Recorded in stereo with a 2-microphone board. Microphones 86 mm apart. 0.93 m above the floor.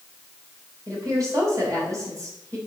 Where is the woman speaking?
45° right (ahead or behind), 4 m.